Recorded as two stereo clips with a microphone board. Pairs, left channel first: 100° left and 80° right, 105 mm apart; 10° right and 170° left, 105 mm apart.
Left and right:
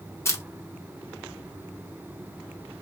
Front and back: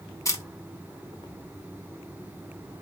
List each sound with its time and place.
0.2 s a camera shutter: 40° left, 0.7 m